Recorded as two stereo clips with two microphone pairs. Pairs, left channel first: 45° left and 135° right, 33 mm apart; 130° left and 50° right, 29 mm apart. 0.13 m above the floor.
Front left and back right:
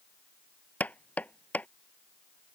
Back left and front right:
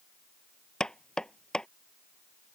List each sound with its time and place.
0.8 s knocking: 65° left